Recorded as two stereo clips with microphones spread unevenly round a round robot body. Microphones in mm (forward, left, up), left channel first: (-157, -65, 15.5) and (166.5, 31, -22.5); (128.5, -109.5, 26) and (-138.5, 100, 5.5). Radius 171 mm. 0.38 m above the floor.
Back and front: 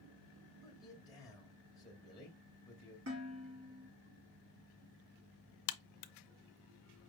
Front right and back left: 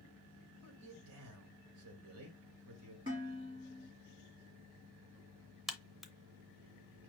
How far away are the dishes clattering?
About 3.5 m.